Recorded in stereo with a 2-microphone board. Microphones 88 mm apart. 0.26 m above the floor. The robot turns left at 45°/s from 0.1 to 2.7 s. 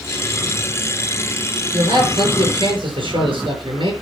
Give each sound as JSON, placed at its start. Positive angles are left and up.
{"t": 1.7, "sound": "a man speaking", "azimuth_deg": -50, "distance_m": 5.5}